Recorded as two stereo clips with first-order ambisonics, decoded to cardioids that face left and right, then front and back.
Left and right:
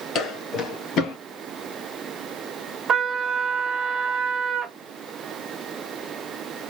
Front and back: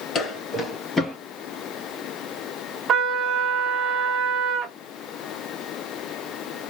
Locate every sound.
0.1 s footsteps: 55° left, 2.5 m; by 1.2 s 80° left, 1.8 m
2.9 s a trumpet: 140° right, 0.9 m